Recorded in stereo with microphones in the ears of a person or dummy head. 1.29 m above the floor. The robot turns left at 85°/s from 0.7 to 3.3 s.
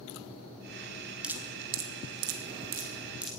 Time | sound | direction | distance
1.2 | dripping | centre (ahead or behind) | 1.7 m